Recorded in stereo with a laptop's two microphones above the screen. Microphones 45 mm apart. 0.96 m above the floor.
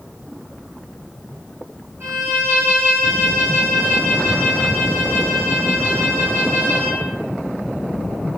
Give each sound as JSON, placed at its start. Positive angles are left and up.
{"t": 2.0, "sound": "a violin", "side_deg": -60, "distance_m": 1.7}